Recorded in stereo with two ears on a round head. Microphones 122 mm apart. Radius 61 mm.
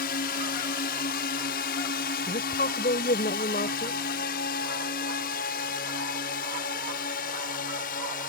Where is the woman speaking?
65° left (ahead or behind).